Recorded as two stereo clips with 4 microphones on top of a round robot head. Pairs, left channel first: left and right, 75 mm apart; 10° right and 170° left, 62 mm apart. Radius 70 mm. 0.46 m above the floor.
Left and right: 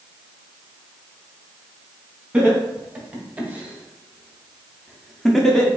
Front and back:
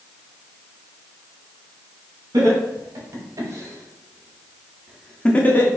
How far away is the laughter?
About 2.5 m.